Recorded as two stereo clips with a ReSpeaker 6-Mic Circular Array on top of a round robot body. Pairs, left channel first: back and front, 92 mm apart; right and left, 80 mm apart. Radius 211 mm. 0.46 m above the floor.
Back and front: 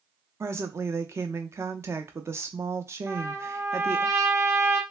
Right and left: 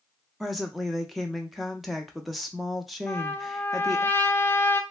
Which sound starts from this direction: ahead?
A woman speaking, at 0.4 s.